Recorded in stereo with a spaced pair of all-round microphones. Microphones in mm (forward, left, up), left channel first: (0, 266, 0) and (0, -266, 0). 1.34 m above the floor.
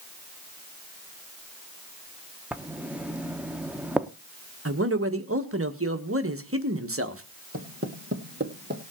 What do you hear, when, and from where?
2.5 s writing: centre (ahead or behind), 0.8 m
4.7 s a man speaking: 25° right (ahead or behind), 1.3 m
7.5 s footsteps: 25° right (ahead or behind), 1.8 m; by 8.8 s 20° right (ahead or behind), 2.5 m